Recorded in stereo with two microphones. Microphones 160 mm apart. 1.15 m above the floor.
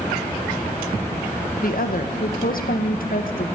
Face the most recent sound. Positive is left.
turn(degrees=65)  # may be behind; listen again after turning